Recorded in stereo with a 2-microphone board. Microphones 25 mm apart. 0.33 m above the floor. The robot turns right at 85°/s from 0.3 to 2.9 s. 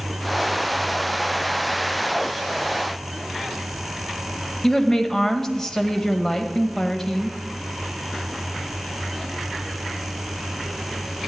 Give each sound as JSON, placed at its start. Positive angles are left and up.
{"t": 4.6, "sound": "a woman speaking", "side_deg": 20, "distance_m": 1.2}